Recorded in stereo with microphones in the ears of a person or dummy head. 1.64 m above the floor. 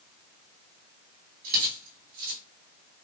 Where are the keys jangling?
45° right (ahead or behind), 1.7 m.